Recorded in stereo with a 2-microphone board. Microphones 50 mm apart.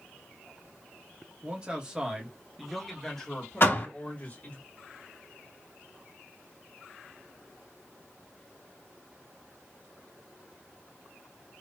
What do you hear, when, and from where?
1.4 s a man speaking: 25° right (ahead or behind), 1.8 m; by 4.6 s 35° left (ahead or behind), 2 m
3.6 s a door slam: 50° left (ahead or behind), 2.5 m